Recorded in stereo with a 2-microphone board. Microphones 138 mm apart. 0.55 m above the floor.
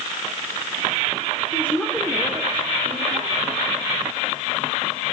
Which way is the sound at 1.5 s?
20° left (ahead or behind).